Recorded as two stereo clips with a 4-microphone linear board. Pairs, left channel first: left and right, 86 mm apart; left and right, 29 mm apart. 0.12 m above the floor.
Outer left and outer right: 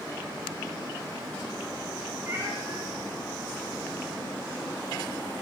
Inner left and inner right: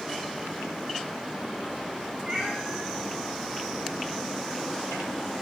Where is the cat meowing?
25° right (ahead or behind), 9 m; by 5.4 s 10° right (ahead or behind), 10 m.